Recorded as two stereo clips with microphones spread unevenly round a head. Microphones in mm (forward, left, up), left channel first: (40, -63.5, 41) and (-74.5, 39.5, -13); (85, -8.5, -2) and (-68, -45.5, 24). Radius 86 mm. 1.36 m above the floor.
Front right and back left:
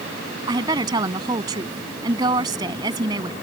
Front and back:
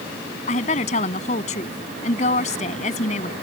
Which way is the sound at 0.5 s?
70° left.